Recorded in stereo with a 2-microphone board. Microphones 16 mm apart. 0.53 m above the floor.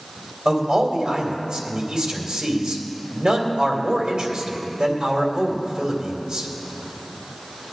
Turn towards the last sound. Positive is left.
turn(degrees=-65)  # may be behind; listen again after turning